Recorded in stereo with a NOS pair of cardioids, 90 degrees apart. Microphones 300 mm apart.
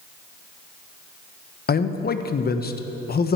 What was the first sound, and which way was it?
A man speaking, 35° left.